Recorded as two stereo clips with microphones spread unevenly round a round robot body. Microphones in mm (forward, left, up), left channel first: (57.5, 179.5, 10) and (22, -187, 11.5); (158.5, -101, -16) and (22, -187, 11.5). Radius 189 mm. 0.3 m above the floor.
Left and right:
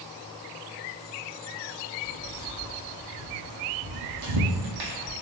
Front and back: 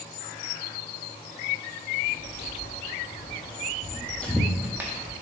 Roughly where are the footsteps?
Ahead.